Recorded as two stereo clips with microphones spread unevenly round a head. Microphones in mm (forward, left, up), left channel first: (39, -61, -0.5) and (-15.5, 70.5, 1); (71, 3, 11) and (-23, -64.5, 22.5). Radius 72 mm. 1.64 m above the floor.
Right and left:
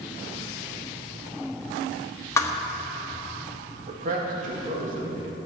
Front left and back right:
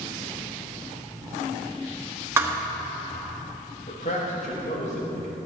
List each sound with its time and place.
2.4 s a thud: 115° right, 1.1 m
3.9 s a man speaking: 75° left, 3.5 m